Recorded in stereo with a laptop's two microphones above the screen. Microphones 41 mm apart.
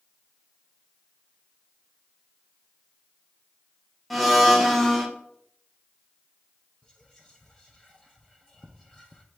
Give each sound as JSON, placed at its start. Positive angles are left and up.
{"t": 4.1, "sound": "a blender", "side_deg": 0, "distance_m": 0.6}
{"t": 6.8, "sound": "whispering", "side_deg": 10, "distance_m": 0.6}